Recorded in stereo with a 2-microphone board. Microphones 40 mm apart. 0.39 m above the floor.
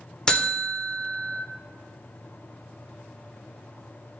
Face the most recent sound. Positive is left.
turn(degrees=20)  # may be behind; listen again after turning